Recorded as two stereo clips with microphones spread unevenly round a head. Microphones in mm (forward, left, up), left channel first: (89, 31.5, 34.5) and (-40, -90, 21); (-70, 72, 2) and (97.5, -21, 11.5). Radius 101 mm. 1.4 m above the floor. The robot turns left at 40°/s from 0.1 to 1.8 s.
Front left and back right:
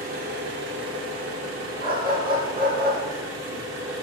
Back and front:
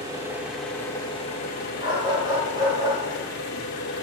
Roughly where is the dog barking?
Right.